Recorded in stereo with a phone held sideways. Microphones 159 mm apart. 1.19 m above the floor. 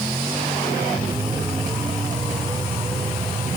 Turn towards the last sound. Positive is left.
No sound to turn to.